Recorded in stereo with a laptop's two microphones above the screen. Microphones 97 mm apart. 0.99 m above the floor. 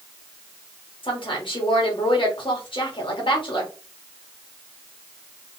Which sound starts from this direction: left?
A woman speaking, at 1.0 s.